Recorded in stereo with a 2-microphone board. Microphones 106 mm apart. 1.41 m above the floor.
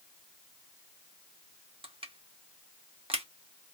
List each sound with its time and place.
1.8 s crushing: 55° right (ahead or behind), 0.8 m